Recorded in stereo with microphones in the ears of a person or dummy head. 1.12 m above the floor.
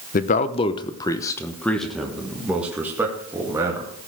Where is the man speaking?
40° left (ahead or behind), 0.7 m; by 3.9 s 15° right (ahead or behind), 2 m.